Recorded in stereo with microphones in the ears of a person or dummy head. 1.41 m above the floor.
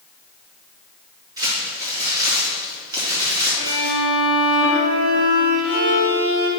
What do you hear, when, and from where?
1.4 s crumpling: 20° right (ahead or behind), 2.5 m
3.6 s a violin: 60° right (ahead or behind), 1.6 m